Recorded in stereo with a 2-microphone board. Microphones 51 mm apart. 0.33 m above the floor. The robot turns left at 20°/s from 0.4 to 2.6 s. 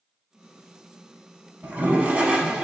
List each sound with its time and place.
1.6 s a toilet flushing: 35° right (ahead or behind), 0.6 m; by 2.6 s 15° right (ahead or behind), 0.6 m